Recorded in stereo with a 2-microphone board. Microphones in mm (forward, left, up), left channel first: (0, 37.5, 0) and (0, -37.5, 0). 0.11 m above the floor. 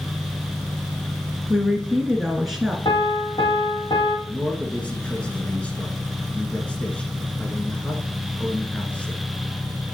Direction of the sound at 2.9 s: 70° left (ahead or behind).